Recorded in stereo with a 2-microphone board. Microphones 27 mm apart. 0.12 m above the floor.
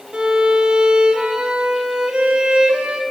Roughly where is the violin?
Right.